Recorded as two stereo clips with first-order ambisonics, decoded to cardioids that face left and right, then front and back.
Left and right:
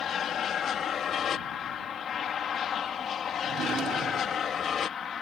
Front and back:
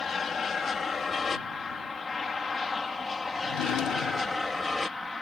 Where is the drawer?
30° right.